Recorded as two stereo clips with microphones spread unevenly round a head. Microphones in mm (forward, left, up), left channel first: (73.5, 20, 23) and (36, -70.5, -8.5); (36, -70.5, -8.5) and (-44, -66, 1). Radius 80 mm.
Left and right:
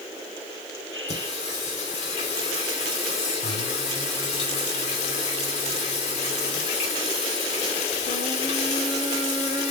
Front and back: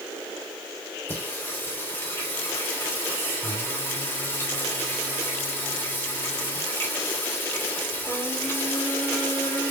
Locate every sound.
1.1 s singing: 75° left, 3 m